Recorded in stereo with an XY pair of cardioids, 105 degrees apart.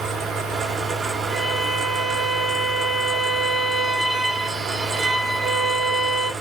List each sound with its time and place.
0.0 s a fan: 65° right, 0.8 m
1.3 s a violin: 30° right, 0.8 m